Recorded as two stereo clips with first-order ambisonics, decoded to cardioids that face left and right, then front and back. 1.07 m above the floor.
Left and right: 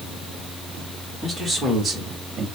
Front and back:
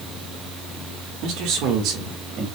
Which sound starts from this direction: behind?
A man speaking, at 1.2 s.